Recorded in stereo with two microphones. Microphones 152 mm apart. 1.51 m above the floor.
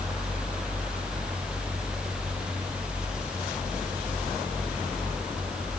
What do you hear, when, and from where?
Only background noise.